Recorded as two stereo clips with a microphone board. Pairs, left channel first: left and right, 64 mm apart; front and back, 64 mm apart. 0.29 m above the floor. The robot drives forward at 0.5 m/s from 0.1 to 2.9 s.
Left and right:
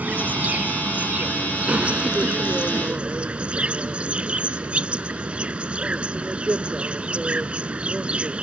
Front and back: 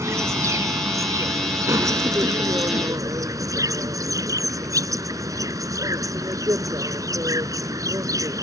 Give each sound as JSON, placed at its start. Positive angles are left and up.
{"t": 0.0, "sound": "an insect", "azimuth_deg": -150}